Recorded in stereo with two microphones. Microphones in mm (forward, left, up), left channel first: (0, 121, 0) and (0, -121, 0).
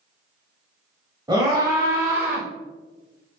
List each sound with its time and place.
1.3 s a scream: 15° right (ahead or behind), 1.1 m; by 2.5 s 5° right (ahead or behind), 1.3 m